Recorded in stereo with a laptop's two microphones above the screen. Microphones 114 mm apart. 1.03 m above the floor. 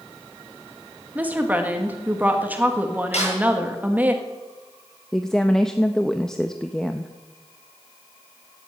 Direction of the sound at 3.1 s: 65° left (ahead or behind).